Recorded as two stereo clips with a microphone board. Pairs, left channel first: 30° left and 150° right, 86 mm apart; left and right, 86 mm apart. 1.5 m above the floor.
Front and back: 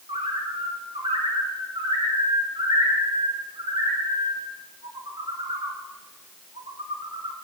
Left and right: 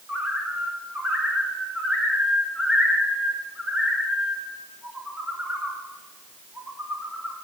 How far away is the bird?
About 1.5 m.